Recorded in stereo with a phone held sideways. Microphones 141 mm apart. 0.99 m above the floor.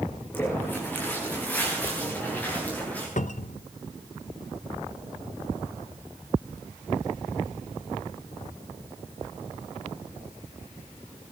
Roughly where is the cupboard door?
Left.